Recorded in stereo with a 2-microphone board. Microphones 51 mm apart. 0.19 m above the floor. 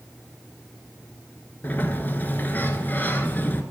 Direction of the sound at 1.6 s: 35° left (ahead or behind).